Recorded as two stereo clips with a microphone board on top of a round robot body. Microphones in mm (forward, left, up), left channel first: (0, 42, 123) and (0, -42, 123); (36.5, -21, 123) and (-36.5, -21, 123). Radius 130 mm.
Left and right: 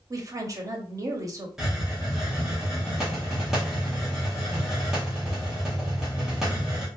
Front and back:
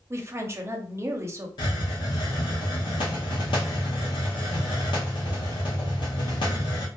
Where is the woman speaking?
130° right, 0.8 m.